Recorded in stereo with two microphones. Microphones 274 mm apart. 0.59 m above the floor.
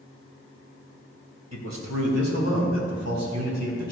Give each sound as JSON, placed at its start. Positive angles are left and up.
{"t": 1.5, "sound": "a man speaking", "side_deg": -75, "distance_m": 2.5}